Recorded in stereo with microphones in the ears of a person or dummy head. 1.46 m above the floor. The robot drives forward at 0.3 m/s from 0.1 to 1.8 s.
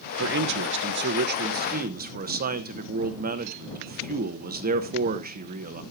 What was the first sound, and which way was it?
A man speaking, 60° right (ahead or behind).